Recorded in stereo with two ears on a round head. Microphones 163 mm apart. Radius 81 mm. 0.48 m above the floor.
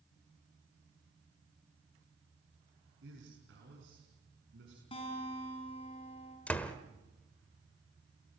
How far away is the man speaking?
About 6 m.